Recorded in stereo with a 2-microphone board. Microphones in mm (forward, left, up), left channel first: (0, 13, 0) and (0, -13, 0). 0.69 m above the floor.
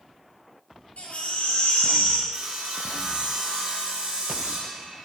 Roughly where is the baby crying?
Left.